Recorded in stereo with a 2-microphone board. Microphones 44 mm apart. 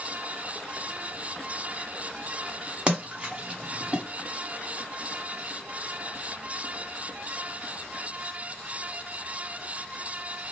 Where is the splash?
25° right (ahead or behind), 1.4 m.